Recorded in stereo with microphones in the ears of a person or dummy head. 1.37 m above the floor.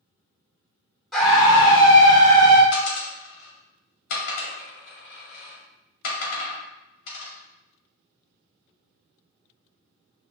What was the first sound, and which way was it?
A scream, centre (ahead or behind).